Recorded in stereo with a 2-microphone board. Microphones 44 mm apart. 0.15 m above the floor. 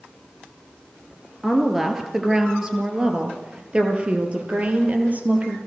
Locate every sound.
1.4 s a woman speaking: 5° right (ahead or behind), 3 m; by 5.6 s 35° right (ahead or behind), 4.5 m